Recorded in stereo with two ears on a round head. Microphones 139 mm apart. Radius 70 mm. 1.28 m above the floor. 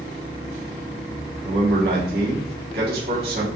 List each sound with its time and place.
1.4 s a man speaking: 65° right (ahead or behind), 1.4 m